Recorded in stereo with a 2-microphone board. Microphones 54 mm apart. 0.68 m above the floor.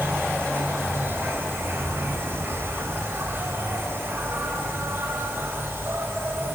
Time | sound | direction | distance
0.0 | an insect | 45° right (ahead or behind) | 4 m